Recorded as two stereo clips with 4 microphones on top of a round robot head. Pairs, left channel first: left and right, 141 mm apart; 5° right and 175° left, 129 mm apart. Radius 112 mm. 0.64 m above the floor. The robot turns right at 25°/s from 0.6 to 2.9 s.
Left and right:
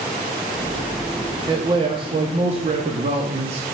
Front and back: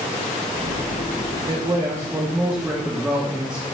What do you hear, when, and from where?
1.5 s a man speaking: 140° right, 1.0 m; by 3.6 s 105° right, 1.0 m